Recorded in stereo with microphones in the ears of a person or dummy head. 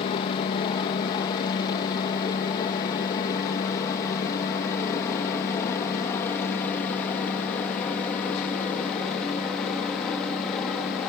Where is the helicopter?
25° left (ahead or behind); by 11.1 s centre (ahead or behind).